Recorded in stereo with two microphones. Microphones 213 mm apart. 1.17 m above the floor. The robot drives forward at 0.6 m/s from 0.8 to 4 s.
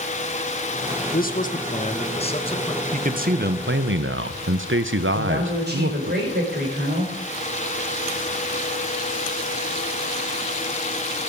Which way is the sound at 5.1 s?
50° right (ahead or behind).